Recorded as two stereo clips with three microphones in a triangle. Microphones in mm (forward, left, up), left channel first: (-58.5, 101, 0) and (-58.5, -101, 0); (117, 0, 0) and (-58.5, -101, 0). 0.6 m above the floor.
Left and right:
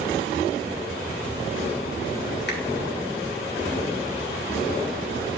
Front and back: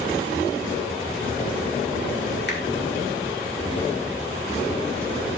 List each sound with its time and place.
2.5 s a finger snap: 60° left, 1.8 m